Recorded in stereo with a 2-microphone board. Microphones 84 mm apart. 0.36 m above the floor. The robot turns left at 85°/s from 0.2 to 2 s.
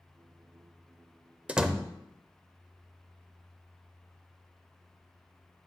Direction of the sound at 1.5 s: 15° right (ahead or behind).